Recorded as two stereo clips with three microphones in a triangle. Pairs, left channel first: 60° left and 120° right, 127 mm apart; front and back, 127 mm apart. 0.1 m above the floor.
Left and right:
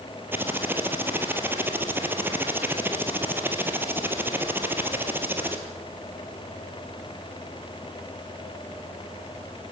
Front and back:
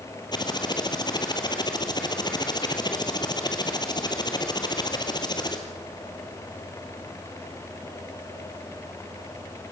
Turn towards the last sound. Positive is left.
turn(degrees=-50)